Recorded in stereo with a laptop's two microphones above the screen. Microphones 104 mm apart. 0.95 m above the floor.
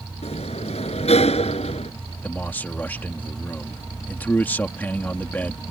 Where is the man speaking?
20° left (ahead or behind).